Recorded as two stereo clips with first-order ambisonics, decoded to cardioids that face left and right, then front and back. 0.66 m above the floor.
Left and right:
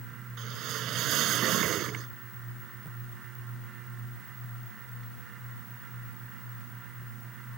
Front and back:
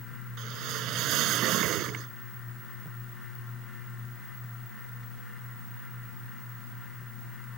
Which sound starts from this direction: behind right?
A whoosh, at 0.4 s.